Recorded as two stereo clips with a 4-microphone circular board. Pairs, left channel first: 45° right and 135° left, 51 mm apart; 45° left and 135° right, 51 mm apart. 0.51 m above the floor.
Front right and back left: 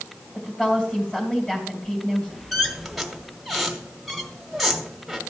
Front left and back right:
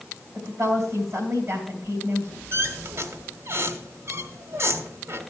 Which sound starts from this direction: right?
A woman speaking, at 0.3 s.